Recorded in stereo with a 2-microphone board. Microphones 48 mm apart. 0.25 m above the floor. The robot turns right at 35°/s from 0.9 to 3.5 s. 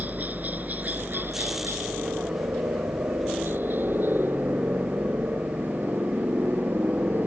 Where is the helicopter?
35° right (ahead or behind); by 7.3 s 50° right (ahead or behind).